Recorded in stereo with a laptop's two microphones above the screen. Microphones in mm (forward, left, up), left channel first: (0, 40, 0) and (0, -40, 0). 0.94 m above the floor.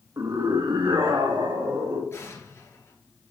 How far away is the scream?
About 1.1 m.